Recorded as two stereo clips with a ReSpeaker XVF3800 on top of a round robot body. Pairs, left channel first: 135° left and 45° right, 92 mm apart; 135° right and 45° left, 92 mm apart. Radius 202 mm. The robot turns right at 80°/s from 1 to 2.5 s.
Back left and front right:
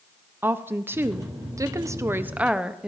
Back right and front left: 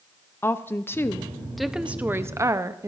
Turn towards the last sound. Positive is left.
turn(degrees=30)